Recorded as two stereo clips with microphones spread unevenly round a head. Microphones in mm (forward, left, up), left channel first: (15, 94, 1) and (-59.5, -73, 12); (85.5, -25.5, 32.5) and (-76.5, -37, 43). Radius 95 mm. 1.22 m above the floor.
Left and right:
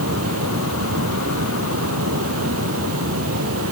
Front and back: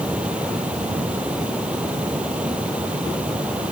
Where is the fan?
95° right.